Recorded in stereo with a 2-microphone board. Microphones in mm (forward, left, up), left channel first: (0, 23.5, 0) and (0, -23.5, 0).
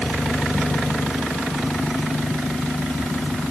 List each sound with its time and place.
Only background noise.